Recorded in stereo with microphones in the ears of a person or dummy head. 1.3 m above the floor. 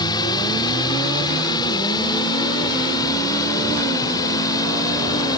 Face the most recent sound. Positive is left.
turn(degrees=20)  # may be behind; listen again after turning